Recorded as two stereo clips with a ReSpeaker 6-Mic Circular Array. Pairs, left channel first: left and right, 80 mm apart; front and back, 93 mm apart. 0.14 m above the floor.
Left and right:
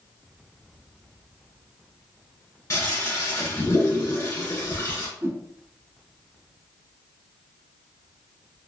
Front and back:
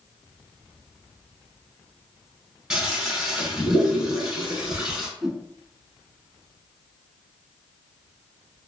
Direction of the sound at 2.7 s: 105° left.